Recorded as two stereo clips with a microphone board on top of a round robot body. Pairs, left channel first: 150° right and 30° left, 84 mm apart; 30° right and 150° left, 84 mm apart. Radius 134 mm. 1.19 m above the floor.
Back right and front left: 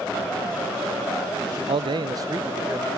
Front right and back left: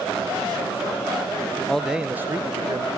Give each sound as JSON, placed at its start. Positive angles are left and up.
{"t": 1.7, "sound": "a man speaking", "azimuth_deg": 50, "distance_m": 0.6}